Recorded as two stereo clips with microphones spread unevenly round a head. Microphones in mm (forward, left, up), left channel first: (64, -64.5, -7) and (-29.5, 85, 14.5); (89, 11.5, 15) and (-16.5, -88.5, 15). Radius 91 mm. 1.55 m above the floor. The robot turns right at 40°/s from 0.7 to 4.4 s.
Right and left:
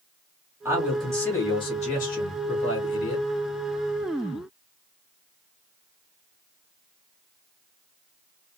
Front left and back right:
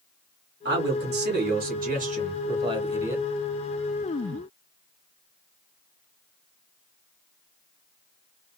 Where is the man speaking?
160° right, 1.5 m; by 3.2 s 60° right, 1.5 m.